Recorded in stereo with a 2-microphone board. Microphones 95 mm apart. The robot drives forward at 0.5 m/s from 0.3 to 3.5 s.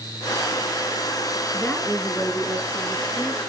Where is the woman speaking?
15° left (ahead or behind), 2.0 m; by 3.4 s 10° left (ahead or behind), 2.5 m.